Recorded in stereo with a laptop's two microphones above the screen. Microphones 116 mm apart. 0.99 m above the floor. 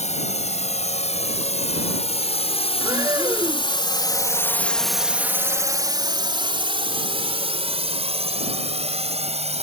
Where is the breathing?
35° right (ahead or behind).